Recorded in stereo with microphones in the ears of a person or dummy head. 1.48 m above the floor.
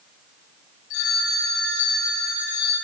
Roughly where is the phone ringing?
Left.